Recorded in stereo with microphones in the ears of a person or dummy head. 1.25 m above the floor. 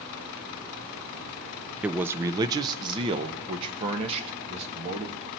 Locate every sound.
1.8 s a man speaking: 5° right (ahead or behind), 0.5 m; by 5.3 s 35° right (ahead or behind), 2.5 m